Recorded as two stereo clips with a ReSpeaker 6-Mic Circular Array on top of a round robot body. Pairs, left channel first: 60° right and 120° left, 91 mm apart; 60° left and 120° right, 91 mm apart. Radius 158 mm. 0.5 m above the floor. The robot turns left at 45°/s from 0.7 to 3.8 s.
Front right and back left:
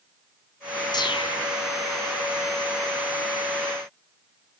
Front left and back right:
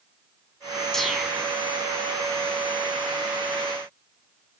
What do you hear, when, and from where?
0.9 s a whoosh: 25° right, 5 m; by 1.6 s 55° right, 5 m